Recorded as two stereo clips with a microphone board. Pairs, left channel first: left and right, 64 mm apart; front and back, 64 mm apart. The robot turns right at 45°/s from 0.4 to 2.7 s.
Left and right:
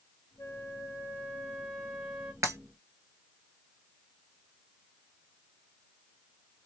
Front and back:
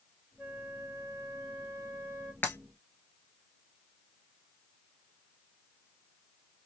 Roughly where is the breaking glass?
Ahead right.